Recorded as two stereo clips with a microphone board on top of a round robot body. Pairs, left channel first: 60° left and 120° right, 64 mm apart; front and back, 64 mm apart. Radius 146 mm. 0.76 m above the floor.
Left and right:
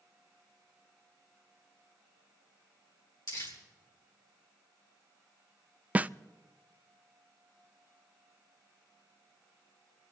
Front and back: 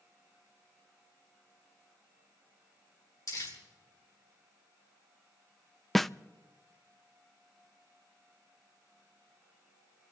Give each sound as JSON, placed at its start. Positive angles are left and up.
{"t": 3.3, "sound": "crumpling", "azimuth_deg": 35, "distance_m": 4.5}
{"t": 6.0, "sound": "a snare drum", "azimuth_deg": -85, "distance_m": 0.5}